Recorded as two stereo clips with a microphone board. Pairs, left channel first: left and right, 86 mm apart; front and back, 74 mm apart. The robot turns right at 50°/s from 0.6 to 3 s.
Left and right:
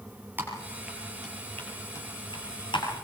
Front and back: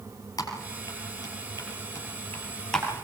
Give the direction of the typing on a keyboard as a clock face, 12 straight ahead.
1 o'clock.